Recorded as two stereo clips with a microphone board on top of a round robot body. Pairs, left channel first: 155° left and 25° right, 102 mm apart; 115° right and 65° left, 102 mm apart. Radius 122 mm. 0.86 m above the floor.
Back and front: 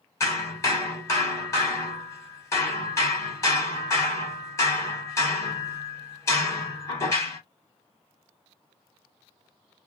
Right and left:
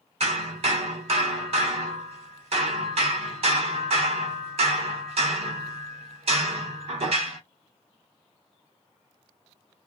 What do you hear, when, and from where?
0.2 s hammering: 95° left, 1.1 m